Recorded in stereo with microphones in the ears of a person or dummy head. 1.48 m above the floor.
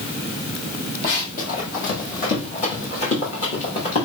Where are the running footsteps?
45° left (ahead or behind), 3 m; by 4.1 s 35° left (ahead or behind), 5.5 m.